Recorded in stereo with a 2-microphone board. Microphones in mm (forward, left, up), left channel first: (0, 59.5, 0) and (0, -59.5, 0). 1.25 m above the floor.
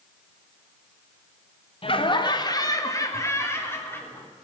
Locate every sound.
1.8 s laughter: 50° left (ahead or behind), 1.5 m; by 4.3 s 15° left (ahead or behind), 3.5 m